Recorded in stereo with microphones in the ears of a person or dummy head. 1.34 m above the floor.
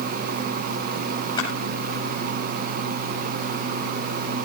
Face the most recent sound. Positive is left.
turn(degrees=25)  # may be behind; listen again after turning